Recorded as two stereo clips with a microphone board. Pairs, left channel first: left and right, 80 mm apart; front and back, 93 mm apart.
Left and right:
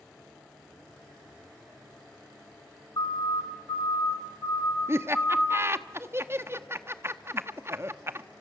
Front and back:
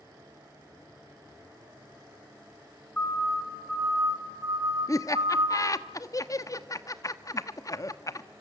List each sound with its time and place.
3.0 s a siren: 75° left, 2.5 m; by 5.7 s 165° left, 3.5 m
4.9 s laughter: 40° right, 1.0 m